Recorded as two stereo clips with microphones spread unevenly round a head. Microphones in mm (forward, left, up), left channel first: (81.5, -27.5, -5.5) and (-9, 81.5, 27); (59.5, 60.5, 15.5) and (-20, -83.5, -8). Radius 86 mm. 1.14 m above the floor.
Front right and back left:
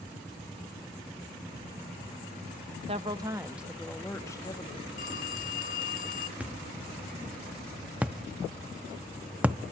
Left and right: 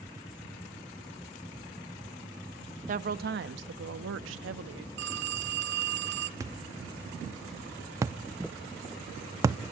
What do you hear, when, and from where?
2.9 s a woman speaking: 170° right, 1.2 m; by 4.9 s 115° right, 1.8 m
5.0 s a phone ringing: 100° right, 1.3 m
6.4 s a thud: 170° left, 0.5 m